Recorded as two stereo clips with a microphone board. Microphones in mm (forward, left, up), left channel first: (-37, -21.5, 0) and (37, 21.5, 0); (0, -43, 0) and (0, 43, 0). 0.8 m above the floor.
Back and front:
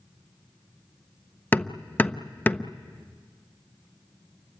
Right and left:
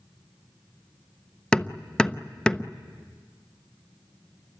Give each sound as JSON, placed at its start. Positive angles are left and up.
{"t": 1.5, "sound": "hammering", "azimuth_deg": -150, "distance_m": 0.6}